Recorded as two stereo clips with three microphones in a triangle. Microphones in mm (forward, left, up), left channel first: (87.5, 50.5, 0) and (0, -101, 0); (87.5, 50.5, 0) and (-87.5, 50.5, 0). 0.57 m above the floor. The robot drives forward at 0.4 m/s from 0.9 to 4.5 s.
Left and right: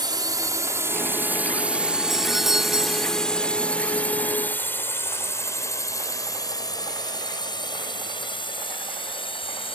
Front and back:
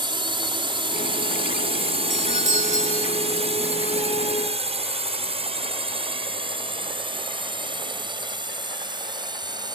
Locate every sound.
0.0 s a drone: 155° right; by 9.8 s 115° left
2.1 s a doorbell: 30° right; by 3.1 s 40° right